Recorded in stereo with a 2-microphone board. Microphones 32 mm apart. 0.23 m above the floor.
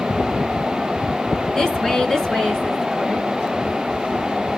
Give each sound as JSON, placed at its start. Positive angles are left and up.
{"t": 1.6, "sound": "a woman speaking", "side_deg": 15, "distance_m": 3.0}